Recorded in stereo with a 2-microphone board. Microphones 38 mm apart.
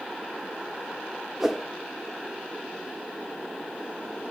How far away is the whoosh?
About 0.8 m.